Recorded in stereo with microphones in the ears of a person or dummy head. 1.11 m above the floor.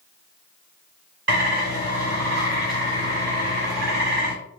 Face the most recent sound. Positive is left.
turn(degrees=-60)  # may be behind; listen again after turning